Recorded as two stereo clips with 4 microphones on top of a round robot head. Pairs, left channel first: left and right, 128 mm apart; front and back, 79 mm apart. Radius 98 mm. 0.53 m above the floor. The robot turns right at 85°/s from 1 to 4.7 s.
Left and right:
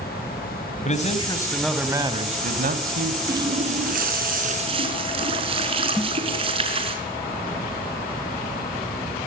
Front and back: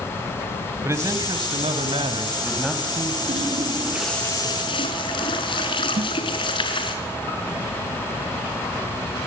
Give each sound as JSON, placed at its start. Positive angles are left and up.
{"t": 0.8, "sound": "a man speaking", "azimuth_deg": 120, "distance_m": 3.5}
{"t": 3.3, "sound": "a running tap", "azimuth_deg": -155, "distance_m": 5.0}
{"t": 6.0, "sound": "a snare drum", "azimuth_deg": -175, "distance_m": 1.5}